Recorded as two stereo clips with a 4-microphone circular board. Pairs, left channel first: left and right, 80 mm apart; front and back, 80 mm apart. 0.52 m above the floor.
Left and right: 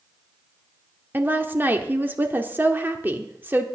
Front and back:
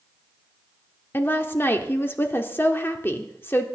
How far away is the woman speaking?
About 1.2 m.